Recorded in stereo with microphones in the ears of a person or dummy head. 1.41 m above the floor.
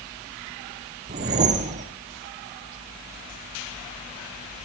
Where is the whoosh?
35° right (ahead or behind), 1.0 m.